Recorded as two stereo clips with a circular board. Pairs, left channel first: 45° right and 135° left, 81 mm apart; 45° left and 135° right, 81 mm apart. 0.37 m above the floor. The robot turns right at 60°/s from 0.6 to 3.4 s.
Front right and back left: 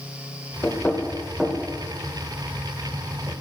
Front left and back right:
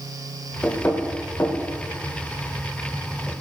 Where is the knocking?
10° right, 0.7 m; by 3.3 s 150° left, 0.7 m.